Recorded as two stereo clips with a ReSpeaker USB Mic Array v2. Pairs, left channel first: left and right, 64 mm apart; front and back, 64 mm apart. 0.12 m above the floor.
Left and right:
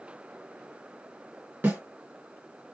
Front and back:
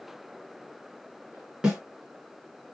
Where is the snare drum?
110° right, 2.0 m.